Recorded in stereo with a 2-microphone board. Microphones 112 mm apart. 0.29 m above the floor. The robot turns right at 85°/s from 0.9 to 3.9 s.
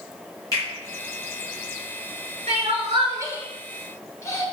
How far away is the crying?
About 0.9 m.